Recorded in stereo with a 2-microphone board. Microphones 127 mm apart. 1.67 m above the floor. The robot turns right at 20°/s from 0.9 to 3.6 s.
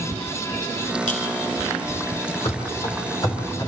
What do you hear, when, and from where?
1.1 s a clink: 80° left, 3.5 m
2.5 s running footsteps: 45° left (ahead or behind), 3.5 m; by 3.7 s 25° left (ahead or behind), 4 m